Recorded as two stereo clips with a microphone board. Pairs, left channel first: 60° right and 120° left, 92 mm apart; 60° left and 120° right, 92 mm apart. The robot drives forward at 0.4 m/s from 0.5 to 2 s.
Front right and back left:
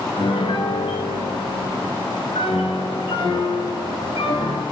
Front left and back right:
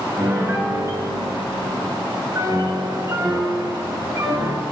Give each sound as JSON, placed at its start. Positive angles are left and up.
{"t": 0.2, "sound": "a piano", "azimuth_deg": -55, "distance_m": 6.5}